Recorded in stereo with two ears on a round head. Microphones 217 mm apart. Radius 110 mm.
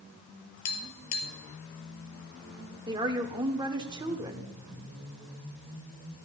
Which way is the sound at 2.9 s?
20° right (ahead or behind).